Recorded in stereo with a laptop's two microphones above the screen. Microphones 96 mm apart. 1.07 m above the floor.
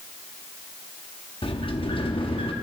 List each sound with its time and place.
1.4 s a sliding door: 60° left (ahead or behind), 1.0 m